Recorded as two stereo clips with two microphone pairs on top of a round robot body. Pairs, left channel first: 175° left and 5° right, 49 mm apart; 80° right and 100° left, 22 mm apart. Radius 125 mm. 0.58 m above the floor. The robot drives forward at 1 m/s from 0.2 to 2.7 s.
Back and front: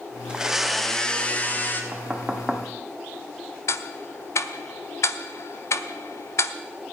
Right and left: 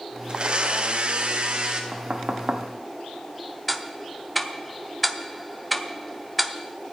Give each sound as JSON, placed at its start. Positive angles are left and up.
{"t": 0.3, "sound": "a blender", "azimuth_deg": 65, "distance_m": 1.3}
{"t": 1.9, "sound": "knocking", "azimuth_deg": 60, "distance_m": 1.4}
{"t": 3.7, "sound": "ticking", "azimuth_deg": -170, "distance_m": 0.8}